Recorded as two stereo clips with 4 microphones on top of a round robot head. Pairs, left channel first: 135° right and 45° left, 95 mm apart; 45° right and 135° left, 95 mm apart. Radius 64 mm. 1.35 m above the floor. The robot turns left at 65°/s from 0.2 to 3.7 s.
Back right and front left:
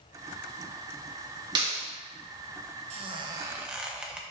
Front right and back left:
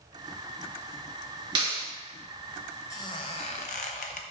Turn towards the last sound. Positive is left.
turn(degrees=-35)